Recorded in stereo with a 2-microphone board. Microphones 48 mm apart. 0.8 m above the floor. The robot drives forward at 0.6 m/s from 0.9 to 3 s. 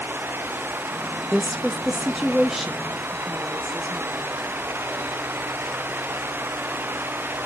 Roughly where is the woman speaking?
Centre.